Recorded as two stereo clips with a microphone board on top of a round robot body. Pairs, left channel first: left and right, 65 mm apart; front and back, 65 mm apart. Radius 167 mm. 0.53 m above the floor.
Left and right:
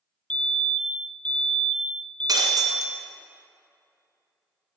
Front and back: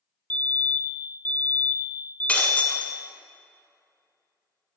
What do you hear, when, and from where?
0.3 s a fire alarm: 30° left, 1.7 m
2.3 s breaking glass: 70° right, 1.7 m